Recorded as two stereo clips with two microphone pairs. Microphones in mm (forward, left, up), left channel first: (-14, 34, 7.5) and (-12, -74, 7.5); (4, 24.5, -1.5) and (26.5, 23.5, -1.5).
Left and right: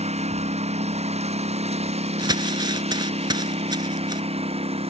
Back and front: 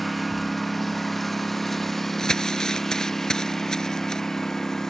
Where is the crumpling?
125° right.